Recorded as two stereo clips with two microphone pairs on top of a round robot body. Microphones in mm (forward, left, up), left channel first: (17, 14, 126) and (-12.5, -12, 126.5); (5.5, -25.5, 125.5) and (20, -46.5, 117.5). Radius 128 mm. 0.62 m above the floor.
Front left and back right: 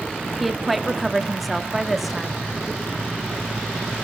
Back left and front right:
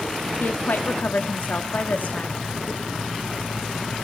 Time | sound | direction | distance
0.4 | a woman speaking | 135° left | 1.6 m